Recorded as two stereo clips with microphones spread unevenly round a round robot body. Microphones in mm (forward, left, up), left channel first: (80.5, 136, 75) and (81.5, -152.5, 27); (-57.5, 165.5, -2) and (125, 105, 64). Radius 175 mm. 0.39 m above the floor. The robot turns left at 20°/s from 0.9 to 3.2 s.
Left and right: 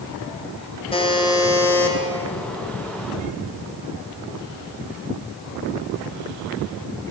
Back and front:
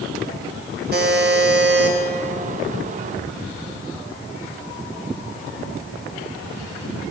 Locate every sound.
0.9 s a buzzer: 15° left, 1.4 m; by 2.0 s 5° right, 1.4 m